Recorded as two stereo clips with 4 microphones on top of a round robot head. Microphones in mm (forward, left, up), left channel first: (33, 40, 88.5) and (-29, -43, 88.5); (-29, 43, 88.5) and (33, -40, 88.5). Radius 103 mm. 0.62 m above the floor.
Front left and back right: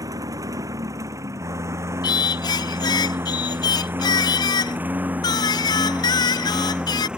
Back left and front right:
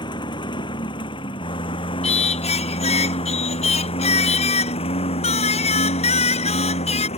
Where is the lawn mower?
175° left; by 7.2 s 150° left.